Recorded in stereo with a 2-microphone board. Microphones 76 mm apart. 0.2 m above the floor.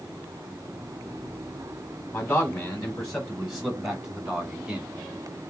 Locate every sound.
2.1 s a man speaking: 15° left (ahead or behind), 1.5 m; by 4.9 s 20° right (ahead or behind), 1.8 m